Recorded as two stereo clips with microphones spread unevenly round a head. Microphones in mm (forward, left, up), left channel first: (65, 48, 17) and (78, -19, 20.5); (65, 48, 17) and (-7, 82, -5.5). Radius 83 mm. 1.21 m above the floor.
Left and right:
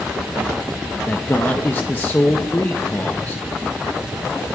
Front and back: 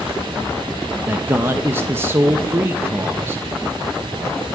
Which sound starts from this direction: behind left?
A man speaking, at 1.1 s.